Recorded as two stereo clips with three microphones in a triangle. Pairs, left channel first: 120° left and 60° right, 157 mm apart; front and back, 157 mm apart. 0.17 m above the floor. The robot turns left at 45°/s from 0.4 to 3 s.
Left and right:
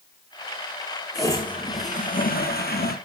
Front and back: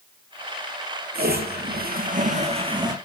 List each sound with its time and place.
1.1 s a toilet flushing: 170° right, 3.5 m; by 3.0 s 110° left, 3.5 m